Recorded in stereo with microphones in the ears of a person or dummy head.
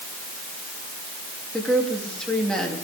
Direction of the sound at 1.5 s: 5° left (ahead or behind).